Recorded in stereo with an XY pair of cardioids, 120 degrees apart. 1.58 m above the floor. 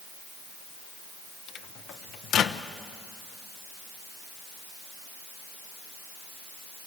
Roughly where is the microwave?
Ahead left.